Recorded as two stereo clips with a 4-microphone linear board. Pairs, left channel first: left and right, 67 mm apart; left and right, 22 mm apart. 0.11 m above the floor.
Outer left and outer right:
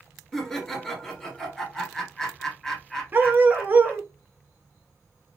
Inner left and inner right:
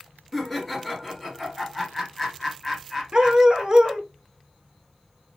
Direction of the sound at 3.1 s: 30° right (ahead or behind).